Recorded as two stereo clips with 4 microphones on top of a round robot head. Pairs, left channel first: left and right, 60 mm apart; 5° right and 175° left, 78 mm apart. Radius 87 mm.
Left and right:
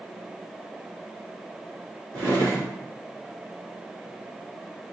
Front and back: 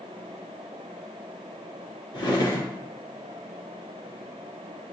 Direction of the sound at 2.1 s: 45° right.